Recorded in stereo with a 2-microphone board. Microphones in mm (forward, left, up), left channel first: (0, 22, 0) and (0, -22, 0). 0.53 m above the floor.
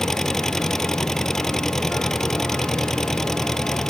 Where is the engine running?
10° left (ahead or behind).